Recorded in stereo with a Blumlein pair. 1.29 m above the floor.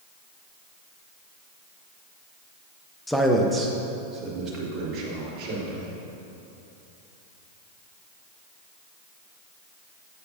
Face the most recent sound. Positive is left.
turn(degrees=-35)